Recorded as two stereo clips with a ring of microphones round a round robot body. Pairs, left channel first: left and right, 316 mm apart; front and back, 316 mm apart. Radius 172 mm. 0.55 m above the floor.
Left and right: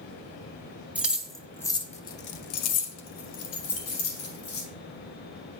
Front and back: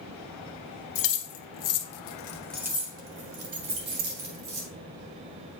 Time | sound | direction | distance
0.9 | keys jangling | 5° right | 1.3 m